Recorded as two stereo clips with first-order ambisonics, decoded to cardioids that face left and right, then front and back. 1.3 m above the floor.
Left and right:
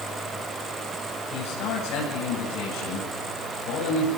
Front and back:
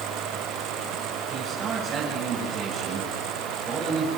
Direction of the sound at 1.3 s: 110° left.